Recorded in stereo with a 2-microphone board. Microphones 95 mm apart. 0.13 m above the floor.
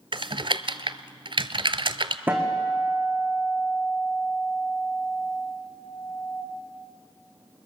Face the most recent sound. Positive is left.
turn(degrees=-20)  # may be behind; listen again after turning